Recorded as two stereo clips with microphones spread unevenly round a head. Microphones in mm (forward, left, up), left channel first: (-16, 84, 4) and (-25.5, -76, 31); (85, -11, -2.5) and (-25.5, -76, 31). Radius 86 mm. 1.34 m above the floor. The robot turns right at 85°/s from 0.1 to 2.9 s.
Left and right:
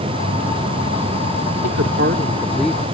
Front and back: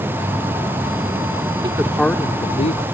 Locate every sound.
1.6 s a woman speaking: 90° right; by 2.9 s 10° left